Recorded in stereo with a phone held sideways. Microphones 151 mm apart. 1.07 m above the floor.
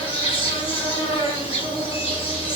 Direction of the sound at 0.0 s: 40° left (ahead or behind).